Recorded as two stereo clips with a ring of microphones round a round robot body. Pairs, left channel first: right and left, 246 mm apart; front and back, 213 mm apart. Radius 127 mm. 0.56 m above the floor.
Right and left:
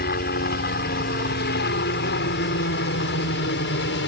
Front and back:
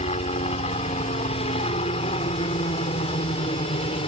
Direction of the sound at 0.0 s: 55° right.